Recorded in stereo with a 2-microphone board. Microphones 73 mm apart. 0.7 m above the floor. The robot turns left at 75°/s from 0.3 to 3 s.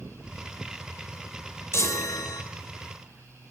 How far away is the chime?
About 0.7 m.